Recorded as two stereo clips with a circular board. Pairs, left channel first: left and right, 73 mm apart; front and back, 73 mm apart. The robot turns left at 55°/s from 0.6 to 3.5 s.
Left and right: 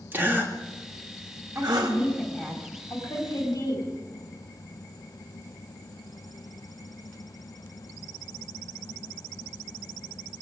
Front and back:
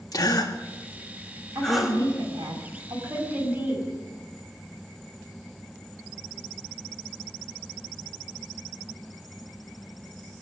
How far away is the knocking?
No knocking in this recording.